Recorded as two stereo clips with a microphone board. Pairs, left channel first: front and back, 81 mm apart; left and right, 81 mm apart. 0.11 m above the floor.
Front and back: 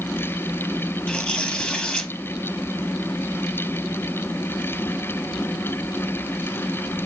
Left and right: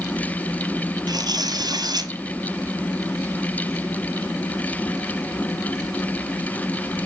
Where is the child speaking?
I don't hear a child speaking.